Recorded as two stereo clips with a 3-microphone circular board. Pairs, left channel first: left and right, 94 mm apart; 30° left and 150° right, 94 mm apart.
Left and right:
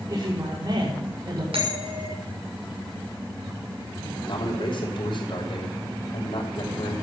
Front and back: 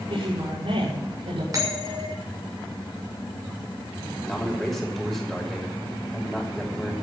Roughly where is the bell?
Right.